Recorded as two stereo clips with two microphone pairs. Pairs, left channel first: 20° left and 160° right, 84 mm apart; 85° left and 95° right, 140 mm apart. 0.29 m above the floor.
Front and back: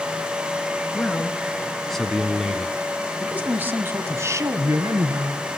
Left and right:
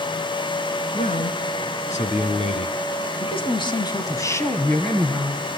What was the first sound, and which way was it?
A man speaking, 95° left.